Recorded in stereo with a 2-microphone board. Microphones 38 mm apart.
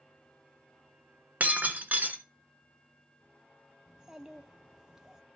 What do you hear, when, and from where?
1.4 s breaking glass: 50° right (ahead or behind), 1.3 m
3.9 s a child speaking: 15° right (ahead or behind), 0.6 m